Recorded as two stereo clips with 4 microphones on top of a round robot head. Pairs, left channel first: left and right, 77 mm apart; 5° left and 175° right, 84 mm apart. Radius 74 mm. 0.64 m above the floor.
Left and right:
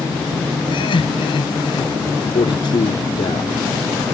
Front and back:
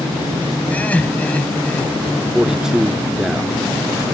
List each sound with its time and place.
0.7 s laughter: 75° left
2.3 s a man speaking: 100° left